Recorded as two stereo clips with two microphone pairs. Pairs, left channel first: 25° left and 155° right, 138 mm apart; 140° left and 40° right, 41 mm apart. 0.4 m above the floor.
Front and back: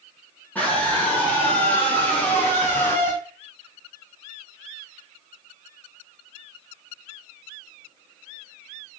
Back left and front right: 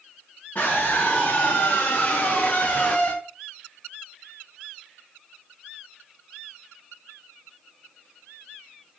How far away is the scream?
About 4.5 m.